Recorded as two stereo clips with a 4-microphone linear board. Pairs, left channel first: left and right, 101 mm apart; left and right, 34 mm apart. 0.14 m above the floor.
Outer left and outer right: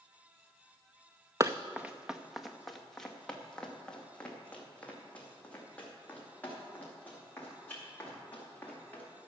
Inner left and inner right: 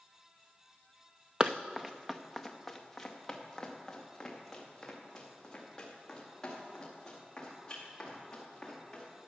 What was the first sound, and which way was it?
Running footsteps, 30° right (ahead or behind).